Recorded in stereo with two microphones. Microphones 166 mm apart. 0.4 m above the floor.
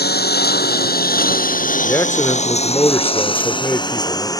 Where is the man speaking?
15° left (ahead or behind).